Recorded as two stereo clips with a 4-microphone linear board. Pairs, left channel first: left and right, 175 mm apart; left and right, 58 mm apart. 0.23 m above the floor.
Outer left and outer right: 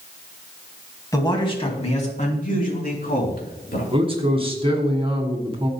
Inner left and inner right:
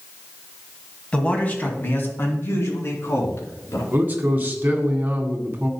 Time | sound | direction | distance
1.1 | a man speaking | 20° left (ahead or behind) | 2 m
3.9 | a man speaking | 30° right (ahead or behind) | 2.0 m